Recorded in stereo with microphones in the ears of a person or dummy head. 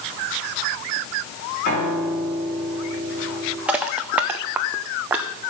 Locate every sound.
1.6 s a piano: 40° left (ahead or behind), 3 m
3.7 s crushing: 10° right (ahead or behind), 0.6 m